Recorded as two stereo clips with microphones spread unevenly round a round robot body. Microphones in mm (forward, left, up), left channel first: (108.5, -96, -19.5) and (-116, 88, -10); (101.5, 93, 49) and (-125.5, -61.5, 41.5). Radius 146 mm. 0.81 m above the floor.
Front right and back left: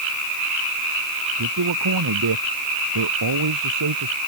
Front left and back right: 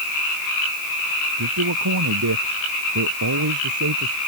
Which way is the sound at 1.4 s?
175° left.